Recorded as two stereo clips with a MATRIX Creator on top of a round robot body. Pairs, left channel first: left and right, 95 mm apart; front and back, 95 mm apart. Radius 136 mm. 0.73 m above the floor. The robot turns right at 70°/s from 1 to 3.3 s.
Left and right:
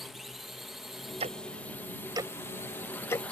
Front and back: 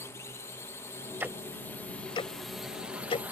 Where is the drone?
5° right; by 3.3 s 140° left.